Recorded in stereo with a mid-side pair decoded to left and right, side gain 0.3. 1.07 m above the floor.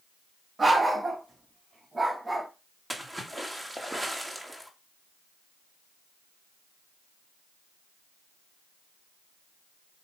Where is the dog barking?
40° right, 3 m; by 2.5 s 20° right, 2 m.